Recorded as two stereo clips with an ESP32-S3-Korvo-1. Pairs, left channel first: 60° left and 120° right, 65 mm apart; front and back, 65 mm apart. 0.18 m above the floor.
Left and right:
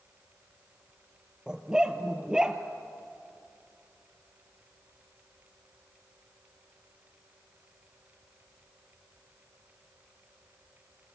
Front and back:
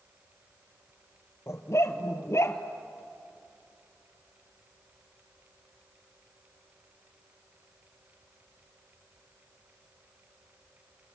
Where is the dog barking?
45° right, 1.3 m.